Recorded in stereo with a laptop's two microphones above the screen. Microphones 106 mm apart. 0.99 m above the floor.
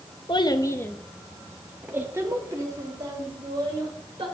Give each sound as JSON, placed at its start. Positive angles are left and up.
{"t": 0.3, "sound": "a child speaking", "side_deg": 50, "distance_m": 0.8}